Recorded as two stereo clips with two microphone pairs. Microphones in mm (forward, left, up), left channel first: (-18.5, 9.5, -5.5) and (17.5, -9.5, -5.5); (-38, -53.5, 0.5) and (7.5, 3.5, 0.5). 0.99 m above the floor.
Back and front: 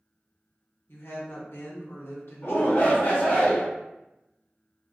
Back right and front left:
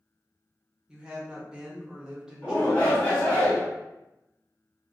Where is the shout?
170° left, 1.3 m.